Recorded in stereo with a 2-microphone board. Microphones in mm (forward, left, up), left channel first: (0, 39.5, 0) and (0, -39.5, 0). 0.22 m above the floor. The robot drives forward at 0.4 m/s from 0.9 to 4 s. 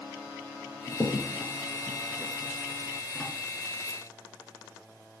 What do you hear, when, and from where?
0.9 s a crack: 5° left (ahead or behind), 2.5 m